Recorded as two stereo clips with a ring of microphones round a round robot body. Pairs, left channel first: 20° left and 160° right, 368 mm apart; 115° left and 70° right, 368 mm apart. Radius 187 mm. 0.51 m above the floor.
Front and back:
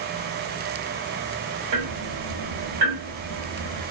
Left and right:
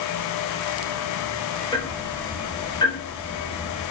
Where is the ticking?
170° right, 2.5 m.